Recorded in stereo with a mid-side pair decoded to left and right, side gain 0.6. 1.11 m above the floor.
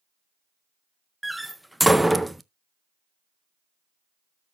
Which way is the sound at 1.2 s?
Straight ahead.